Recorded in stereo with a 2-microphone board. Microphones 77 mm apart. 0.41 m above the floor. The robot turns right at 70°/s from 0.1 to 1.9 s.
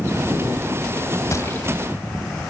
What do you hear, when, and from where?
1.3 s a gunshot: 40° left (ahead or behind), 2.5 m; by 1.7 s 15° left (ahead or behind), 2.5 m